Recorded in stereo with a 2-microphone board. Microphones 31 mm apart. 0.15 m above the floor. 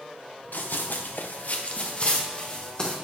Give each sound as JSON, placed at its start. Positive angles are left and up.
{"t": 0.5, "sound": "running footsteps", "side_deg": 70, "distance_m": 1.3}